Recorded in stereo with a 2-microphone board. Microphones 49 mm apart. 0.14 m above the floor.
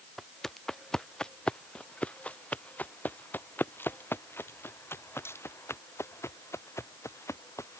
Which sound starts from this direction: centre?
Footsteps, at 0.2 s.